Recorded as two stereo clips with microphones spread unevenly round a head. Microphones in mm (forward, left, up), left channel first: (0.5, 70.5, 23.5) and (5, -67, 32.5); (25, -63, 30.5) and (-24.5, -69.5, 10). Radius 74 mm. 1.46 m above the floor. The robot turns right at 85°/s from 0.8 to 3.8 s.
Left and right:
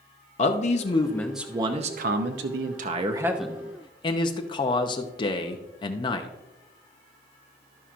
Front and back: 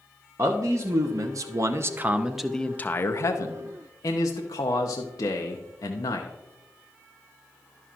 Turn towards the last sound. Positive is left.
turn(degrees=30)